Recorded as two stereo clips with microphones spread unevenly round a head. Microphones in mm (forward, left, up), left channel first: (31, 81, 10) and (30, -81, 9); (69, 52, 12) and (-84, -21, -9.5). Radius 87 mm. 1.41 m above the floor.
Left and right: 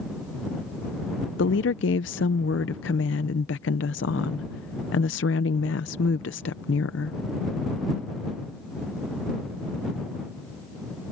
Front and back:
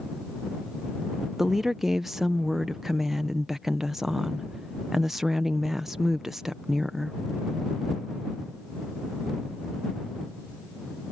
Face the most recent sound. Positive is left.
turn(degrees=115)